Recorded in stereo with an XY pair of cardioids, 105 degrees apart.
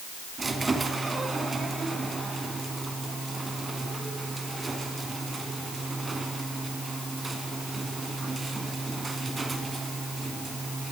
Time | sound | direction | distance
0.4 | a squeak | 25° right | 3 m